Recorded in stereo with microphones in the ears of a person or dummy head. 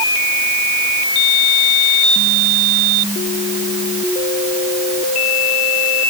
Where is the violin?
I don't hear a violin.